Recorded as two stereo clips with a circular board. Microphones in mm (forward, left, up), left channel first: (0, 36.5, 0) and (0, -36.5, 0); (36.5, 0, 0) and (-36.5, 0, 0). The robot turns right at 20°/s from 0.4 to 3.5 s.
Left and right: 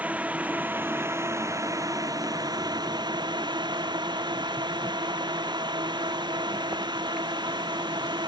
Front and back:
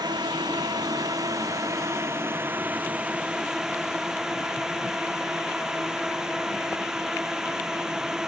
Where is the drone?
160° right; by 8.3 s 100° right.